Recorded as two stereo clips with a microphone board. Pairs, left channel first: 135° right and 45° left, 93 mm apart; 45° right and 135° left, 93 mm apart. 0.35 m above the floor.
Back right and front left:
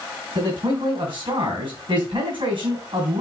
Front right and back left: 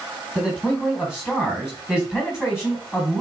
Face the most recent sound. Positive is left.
turn(degrees=50)